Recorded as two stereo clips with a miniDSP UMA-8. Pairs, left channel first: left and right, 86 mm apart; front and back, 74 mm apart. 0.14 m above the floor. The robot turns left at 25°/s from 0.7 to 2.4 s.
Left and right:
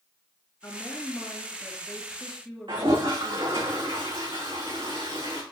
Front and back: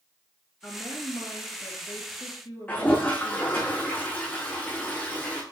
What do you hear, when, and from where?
0.6 s a woman speaking: 45° left, 2.5 m; by 3.7 s straight ahead, 2.5 m
2.7 s a toilet flushing: 65° right, 3.5 m